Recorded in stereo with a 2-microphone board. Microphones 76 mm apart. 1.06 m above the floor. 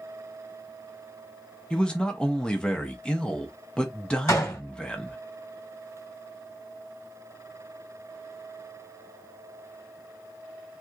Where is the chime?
I don't hear a chime.